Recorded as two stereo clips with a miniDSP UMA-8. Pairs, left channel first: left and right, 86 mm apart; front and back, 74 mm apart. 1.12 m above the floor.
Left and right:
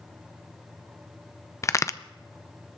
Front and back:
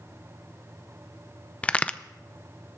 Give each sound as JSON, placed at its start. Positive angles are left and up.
{"t": 1.6, "sound": "a crack", "azimuth_deg": 60, "distance_m": 0.5}